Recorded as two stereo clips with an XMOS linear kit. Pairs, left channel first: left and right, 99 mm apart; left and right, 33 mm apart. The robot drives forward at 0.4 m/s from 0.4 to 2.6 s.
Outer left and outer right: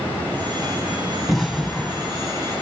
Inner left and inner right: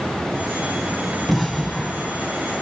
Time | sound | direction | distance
1.3 | an explosion | centre (ahead or behind) | 1.3 m